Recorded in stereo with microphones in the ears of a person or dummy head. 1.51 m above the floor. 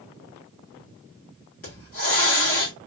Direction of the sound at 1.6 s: 40° left (ahead or behind).